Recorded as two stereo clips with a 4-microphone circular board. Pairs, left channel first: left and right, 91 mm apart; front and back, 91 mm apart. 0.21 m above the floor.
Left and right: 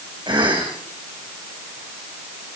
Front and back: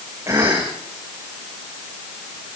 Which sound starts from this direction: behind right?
A cough, at 0.3 s.